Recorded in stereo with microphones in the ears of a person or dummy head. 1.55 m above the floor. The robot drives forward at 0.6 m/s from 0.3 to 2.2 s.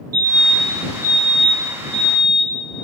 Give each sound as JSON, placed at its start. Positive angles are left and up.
{"t": 0.1, "sound": "a fire alarm", "side_deg": -80, "distance_m": 4.5}